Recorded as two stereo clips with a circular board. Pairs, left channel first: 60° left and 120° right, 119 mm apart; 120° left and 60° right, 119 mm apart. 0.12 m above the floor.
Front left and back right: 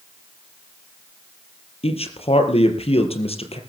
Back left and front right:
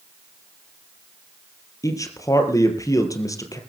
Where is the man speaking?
65° left, 3.5 m.